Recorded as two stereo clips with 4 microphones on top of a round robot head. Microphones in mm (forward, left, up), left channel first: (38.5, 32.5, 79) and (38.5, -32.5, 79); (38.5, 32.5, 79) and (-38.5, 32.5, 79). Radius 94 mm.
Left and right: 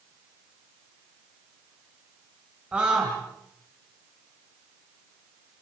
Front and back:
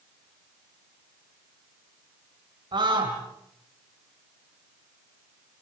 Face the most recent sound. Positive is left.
turn(degrees=-165)